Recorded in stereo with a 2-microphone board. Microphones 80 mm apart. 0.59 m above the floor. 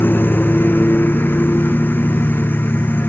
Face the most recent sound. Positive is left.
turn(degrees=25)  # may be behind; listen again after turning